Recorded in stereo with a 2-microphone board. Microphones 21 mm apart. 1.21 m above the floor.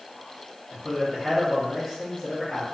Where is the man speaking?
20° left (ahead or behind), 0.9 m.